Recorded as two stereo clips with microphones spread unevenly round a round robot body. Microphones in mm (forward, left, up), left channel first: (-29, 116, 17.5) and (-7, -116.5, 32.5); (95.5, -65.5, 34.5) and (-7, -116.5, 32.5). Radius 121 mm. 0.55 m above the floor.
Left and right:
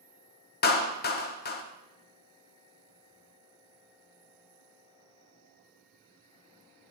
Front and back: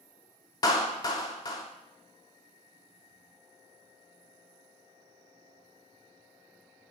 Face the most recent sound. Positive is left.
turn(degrees=75)